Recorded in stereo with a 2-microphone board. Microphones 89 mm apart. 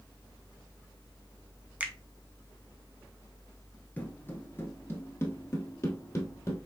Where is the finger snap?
15° right (ahead or behind), 0.7 m.